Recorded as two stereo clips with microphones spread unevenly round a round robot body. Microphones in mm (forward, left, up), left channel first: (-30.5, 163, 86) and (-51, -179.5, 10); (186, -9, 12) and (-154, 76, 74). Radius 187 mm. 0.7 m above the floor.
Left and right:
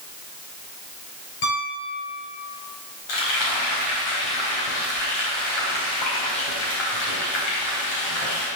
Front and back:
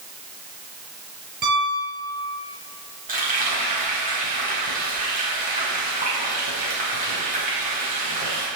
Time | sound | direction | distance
1.4 | a piano | 105° left | 3.5 m
3.1 | frying | 95° left | 4.5 m